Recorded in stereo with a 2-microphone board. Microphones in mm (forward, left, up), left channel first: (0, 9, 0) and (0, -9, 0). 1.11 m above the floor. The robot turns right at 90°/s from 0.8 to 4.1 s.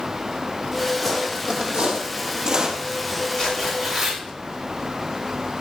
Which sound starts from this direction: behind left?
Tearing paper, at 3.4 s.